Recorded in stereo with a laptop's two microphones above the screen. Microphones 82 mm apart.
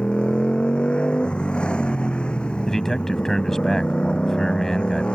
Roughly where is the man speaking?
Centre.